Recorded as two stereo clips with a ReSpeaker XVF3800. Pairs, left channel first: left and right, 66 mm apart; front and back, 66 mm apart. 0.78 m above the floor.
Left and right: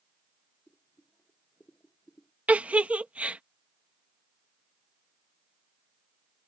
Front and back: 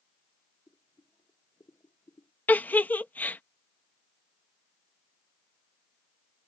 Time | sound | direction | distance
0.7 | boiling | 25° left | ?
2.5 | a giggle | 40° right | ?